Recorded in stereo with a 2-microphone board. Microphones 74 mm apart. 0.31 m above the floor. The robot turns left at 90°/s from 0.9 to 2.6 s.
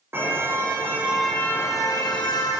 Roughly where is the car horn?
Behind right.